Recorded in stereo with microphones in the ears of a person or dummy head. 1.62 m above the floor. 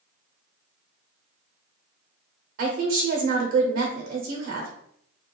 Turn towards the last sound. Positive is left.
turn(degrees=-65)  # may be behind; listen again after turning